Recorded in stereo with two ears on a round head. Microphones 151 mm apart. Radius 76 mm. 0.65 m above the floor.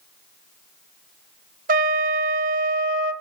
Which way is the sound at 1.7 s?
55° right (ahead or behind).